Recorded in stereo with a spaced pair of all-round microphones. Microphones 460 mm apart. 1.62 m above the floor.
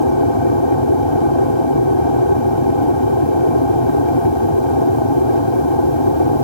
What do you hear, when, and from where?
0.0 s an aircraft: 75° left (ahead or behind)